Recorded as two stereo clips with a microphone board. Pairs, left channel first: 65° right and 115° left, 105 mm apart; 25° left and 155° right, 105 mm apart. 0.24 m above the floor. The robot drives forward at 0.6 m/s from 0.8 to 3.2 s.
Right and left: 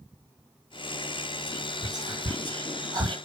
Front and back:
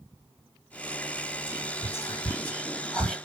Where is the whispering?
65° left, 1.8 m; by 3.2 s 110° left, 1.8 m.